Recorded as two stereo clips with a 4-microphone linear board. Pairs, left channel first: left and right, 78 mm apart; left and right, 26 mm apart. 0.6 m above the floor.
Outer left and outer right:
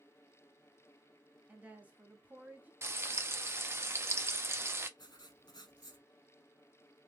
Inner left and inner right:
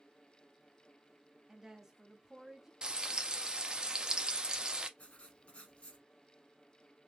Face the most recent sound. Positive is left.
turn(degrees=65)  # may be behind; listen again after turning